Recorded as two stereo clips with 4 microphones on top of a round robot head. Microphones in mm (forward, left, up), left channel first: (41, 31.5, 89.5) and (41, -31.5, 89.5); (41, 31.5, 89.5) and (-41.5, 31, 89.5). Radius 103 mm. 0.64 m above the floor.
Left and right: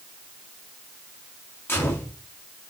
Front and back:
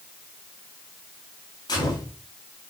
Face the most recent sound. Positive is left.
turn(degrees=35)